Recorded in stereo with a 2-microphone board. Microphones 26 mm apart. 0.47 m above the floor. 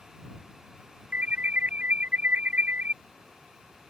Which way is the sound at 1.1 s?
70° right (ahead or behind).